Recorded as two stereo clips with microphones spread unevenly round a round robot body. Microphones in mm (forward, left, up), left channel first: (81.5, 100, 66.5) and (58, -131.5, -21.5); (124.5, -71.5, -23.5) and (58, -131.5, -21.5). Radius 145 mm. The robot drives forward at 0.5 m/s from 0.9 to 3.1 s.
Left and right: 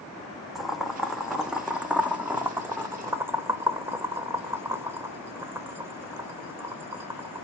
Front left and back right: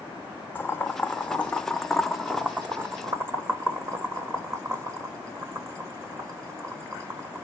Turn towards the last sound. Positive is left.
turn(degrees=-115)